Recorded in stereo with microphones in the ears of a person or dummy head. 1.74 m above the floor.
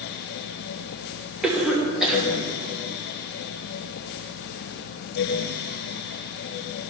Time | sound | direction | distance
1.4 | a cough | centre (ahead or behind) | 3 m